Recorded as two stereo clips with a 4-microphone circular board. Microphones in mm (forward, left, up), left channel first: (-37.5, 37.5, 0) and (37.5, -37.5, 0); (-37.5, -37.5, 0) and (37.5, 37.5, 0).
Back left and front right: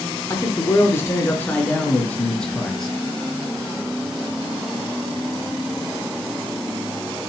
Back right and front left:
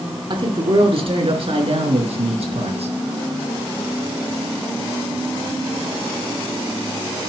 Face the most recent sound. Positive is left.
turn(degrees=45)